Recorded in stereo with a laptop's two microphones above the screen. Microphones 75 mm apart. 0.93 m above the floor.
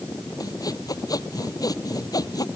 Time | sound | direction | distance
0.4 | sawing | 55° left (ahead or behind) | ?